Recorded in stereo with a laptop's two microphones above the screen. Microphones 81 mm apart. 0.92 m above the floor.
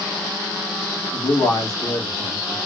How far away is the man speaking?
About 2.5 m.